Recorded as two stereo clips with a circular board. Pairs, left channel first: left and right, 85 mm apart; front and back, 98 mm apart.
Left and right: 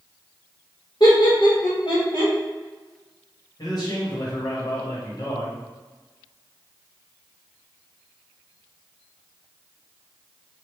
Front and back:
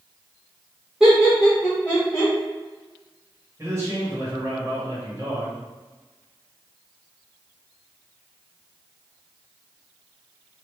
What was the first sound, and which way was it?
Laughter, 105° left.